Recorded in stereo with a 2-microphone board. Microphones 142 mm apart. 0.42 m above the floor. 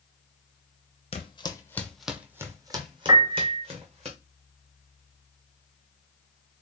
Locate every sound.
1.1 s footsteps: 45° left (ahead or behind), 0.7 m; by 4.1 s 45° right (ahead or behind), 1.5 m
3.1 s a piano: 25° right (ahead or behind), 0.6 m